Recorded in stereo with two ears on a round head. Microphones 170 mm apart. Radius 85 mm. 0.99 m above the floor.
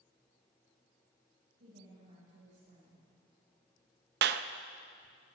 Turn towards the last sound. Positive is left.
turn(degrees=-55)  # may be behind; listen again after turning